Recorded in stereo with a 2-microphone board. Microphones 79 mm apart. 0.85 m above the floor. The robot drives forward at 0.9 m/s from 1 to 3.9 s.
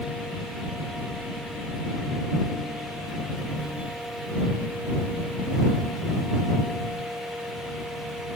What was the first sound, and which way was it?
Only background noise.